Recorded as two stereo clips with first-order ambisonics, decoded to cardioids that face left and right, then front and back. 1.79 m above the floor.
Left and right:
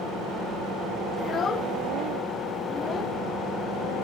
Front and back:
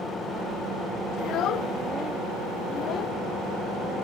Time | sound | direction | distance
1.2 | a child speaking | 30° left | ?